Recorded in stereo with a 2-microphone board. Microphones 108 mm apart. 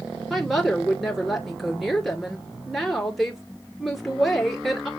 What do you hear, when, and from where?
0.3 s a woman speaking: centre (ahead or behind), 2 m